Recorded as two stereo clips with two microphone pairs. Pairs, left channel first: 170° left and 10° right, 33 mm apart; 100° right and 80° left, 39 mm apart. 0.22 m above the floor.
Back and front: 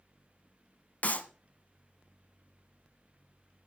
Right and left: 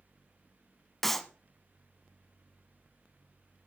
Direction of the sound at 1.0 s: 175° left.